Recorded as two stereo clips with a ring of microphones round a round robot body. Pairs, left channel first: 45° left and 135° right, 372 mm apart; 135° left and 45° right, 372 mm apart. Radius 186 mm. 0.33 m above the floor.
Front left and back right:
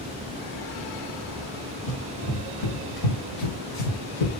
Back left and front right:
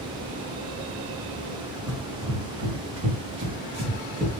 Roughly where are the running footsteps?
Ahead.